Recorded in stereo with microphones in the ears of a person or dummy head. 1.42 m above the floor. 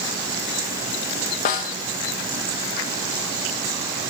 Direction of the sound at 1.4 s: 35° left (ahead or behind).